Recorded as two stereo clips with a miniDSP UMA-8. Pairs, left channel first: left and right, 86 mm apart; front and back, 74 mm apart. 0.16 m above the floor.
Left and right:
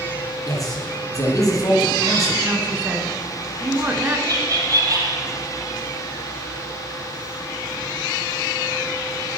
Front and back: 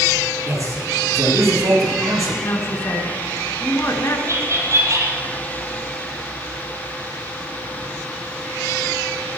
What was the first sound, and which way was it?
A man speaking, 140° left.